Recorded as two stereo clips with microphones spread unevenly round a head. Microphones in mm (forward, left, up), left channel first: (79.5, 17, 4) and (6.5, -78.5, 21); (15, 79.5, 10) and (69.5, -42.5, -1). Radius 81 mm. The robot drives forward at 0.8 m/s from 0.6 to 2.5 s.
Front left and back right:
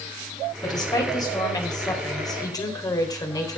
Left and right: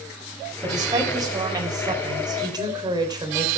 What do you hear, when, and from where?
0.6 s a woman speaking: 5° right, 5.5 m